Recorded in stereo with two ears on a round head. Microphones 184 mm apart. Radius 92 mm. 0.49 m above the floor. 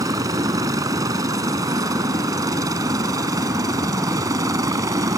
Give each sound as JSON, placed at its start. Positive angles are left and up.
{"t": 0.0, "sound": "a helicopter", "side_deg": -15}